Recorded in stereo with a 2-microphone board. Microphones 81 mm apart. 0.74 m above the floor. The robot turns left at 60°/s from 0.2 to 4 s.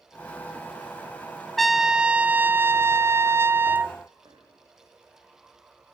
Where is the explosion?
No explosion in this recording.